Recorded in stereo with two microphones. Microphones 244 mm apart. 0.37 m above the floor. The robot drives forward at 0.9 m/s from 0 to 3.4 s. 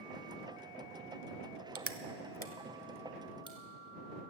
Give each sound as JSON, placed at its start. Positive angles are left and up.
{"t": 1.8, "sound": "crushing", "side_deg": -70, "distance_m": 0.6}